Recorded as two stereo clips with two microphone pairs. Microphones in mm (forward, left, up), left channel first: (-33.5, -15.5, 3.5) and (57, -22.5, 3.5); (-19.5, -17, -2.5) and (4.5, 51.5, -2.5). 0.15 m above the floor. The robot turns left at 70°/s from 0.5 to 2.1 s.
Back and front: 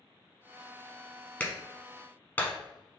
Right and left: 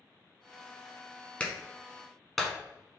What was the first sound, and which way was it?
A clap, 145° right.